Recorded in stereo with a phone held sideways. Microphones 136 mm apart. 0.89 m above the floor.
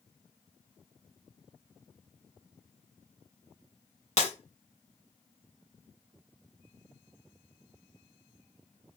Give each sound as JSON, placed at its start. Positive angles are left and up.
{"t": 4.2, "sound": "breaking glass", "side_deg": 55, "distance_m": 2.5}